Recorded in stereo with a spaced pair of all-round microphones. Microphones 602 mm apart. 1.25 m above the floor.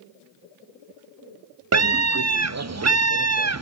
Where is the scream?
30° right (ahead or behind), 0.5 m.